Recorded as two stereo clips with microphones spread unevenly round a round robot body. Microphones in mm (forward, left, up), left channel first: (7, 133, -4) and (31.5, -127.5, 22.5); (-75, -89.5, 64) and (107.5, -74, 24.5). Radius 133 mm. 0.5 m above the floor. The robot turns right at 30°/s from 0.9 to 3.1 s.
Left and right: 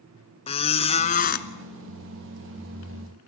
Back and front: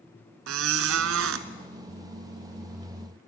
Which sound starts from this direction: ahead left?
A squeak, at 0.5 s.